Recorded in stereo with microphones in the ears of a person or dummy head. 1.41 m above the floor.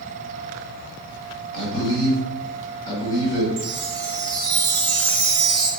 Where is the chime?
60° right (ahead or behind), 1.7 m.